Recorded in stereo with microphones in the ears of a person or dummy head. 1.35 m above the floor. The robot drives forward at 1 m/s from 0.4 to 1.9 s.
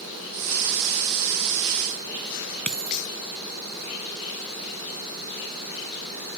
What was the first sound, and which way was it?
A dropped coin, 10° left (ahead or behind).